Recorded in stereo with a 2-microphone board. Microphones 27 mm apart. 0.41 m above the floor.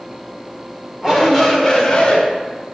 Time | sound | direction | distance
1.0 | a shout | 20° right (ahead or behind) | 1.4 m